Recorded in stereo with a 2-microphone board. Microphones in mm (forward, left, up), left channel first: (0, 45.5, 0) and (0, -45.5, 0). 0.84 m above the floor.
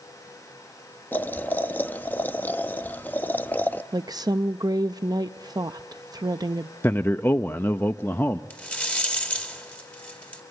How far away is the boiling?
About 0.6 m.